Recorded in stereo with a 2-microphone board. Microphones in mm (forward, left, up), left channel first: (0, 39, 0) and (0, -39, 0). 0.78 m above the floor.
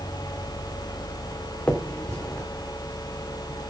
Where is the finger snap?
15° left (ahead or behind), 2.5 m.